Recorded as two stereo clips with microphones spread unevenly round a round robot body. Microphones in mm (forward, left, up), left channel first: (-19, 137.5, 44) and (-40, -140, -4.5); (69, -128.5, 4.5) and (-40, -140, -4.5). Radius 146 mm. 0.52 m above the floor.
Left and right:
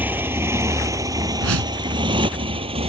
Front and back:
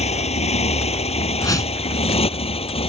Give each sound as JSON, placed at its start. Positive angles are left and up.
{"t": 0.0, "sound": "a motorcycle", "azimuth_deg": -10}
{"t": 1.4, "sound": "a whoosh", "azimuth_deg": -50}